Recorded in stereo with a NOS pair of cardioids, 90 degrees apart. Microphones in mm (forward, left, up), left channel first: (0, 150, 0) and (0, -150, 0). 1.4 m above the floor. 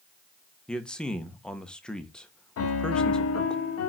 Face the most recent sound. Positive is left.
turn(degrees=55)